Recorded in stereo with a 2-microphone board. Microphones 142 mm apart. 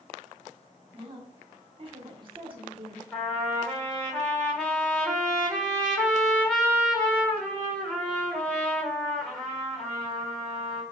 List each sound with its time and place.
0.9 s a woman speaking: 40° right (ahead or behind), 1.5 m
3.1 s a trumpet: 10° left (ahead or behind), 1.6 m